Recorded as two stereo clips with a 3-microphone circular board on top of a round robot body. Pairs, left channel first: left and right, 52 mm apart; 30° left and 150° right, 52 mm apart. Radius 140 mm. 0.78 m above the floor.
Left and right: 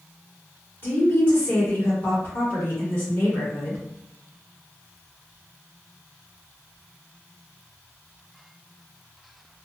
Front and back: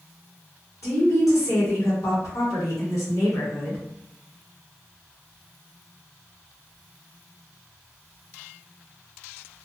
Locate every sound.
0.8 s a woman speaking: 50° left, 1.5 m